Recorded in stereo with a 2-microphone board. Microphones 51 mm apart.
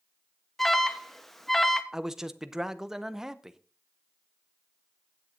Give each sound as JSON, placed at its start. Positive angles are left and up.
{"t": 0.6, "sound": "an alarm", "side_deg": 5, "distance_m": 0.9}
{"t": 1.9, "sound": "a man speaking", "side_deg": -5, "distance_m": 0.7}